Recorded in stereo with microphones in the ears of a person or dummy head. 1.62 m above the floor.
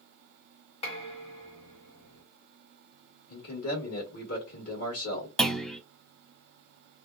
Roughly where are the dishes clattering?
Left.